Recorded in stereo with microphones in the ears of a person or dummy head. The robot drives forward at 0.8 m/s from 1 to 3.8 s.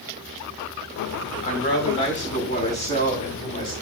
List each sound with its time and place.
1.4 s a woman speaking: 40° left (ahead or behind), 5.5 m; by 3.7 s 30° left (ahead or behind), 7 m